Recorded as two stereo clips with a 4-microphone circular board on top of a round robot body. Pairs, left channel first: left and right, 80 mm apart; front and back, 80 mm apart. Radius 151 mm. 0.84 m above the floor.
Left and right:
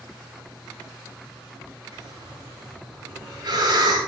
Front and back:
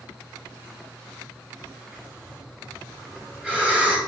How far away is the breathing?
About 5.5 m.